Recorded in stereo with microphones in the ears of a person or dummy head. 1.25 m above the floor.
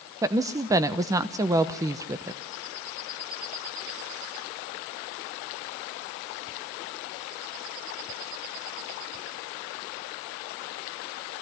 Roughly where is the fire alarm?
No fire alarm in this recording.